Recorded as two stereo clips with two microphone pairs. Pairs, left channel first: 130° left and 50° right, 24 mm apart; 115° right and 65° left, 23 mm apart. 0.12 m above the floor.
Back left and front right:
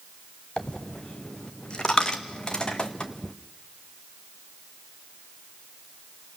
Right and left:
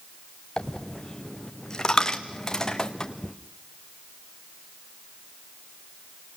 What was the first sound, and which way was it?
A dropped coin, straight behind.